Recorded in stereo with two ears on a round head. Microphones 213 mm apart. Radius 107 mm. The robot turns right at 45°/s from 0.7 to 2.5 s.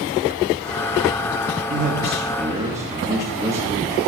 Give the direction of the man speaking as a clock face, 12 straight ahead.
2 o'clock.